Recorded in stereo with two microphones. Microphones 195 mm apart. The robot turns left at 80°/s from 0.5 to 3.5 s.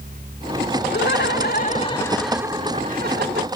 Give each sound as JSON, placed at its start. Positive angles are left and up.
{"t": 0.9, "sound": "laughter", "azimuth_deg": 105}